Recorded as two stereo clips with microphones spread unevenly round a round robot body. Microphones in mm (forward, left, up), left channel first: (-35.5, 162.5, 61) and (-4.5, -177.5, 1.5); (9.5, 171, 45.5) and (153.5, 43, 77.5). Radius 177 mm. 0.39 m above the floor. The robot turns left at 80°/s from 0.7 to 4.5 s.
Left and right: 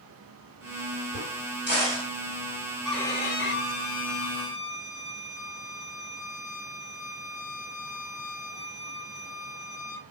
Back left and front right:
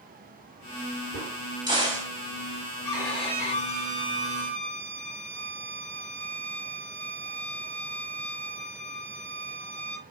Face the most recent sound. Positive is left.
turn(degrees=70)